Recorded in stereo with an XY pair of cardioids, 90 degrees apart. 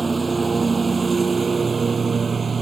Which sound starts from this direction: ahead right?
A lawn mower, at 0.0 s.